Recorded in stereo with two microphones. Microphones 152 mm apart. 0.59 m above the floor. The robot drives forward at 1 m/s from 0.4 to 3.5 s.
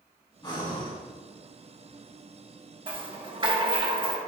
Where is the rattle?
35° right (ahead or behind), 1.1 m; by 4.2 s 30° right (ahead or behind), 1.2 m.